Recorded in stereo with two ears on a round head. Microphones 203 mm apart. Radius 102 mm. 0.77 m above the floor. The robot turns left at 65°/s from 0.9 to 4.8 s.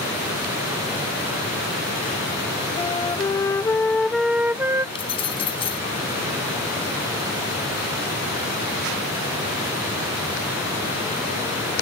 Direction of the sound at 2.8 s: 20° left (ahead or behind).